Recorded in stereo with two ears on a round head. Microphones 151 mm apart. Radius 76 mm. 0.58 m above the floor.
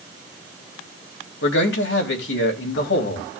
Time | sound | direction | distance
1.4 | a man speaking | 75° left (ahead or behind) | 3 m